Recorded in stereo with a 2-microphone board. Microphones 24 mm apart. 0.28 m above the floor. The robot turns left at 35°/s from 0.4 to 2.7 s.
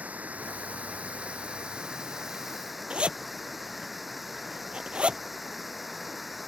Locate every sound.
0.0 s running water: 95° right; by 6.5 s 175° right
2.9 s a zipper: 50° right (ahead or behind)